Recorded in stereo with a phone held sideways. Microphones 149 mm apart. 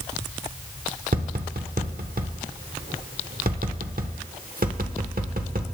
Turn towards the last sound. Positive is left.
turn(degrees=-75)  # may be behind; listen again after turning